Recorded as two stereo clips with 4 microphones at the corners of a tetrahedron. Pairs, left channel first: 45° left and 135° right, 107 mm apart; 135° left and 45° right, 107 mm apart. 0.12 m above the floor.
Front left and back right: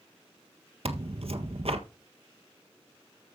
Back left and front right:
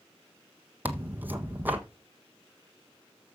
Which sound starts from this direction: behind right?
Tearing paper, at 0.8 s.